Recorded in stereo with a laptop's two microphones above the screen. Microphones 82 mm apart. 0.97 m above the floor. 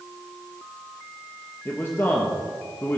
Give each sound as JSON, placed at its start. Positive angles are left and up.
{"t": 1.6, "sound": "a man speaking", "side_deg": 25, "distance_m": 1.3}